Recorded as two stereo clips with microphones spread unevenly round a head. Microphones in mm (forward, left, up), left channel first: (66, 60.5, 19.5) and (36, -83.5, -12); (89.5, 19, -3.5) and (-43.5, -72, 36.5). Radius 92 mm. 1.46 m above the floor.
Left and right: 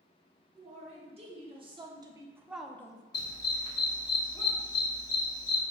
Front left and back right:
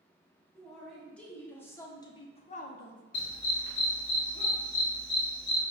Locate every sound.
0.6 s a man speaking: 55° right, 1.6 m; by 3.0 s 20° left, 0.5 m
3.1 s a dog barking: 60° left, 1.1 m